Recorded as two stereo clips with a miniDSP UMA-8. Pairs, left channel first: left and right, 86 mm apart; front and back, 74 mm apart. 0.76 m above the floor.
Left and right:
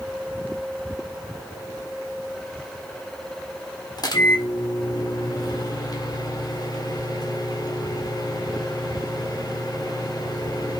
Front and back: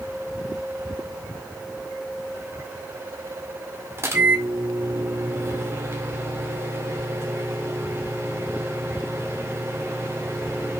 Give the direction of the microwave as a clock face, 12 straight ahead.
8 o'clock.